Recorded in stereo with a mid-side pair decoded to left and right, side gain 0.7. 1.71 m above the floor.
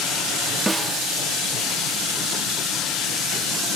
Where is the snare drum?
5° right.